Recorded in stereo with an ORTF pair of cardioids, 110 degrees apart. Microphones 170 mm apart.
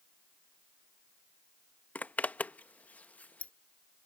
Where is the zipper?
10° left.